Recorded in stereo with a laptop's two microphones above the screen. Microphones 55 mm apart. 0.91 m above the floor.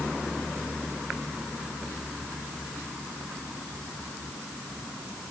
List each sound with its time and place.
Only background noise.